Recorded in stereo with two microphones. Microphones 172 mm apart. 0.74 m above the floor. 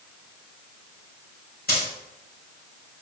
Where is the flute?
I don't hear a flute.